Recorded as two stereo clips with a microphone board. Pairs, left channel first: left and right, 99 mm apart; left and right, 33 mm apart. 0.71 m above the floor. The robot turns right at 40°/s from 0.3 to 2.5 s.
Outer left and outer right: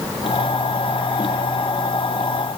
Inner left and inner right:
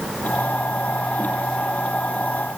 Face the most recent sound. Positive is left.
No sound to turn to.